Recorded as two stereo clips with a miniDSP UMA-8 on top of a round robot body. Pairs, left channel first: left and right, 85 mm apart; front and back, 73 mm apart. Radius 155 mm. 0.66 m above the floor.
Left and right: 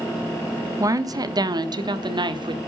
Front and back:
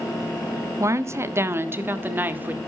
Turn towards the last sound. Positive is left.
turn(degrees=-115)